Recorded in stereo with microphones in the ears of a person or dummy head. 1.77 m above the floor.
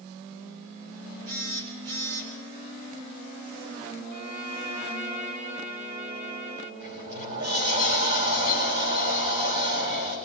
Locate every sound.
1.3 s a phone buzzing: 75° right (ahead or behind), 6.5 m
4.1 s a violin: 45° right (ahead or behind), 3.5 m
6.8 s a sliding door: 55° right (ahead or behind), 9.5 m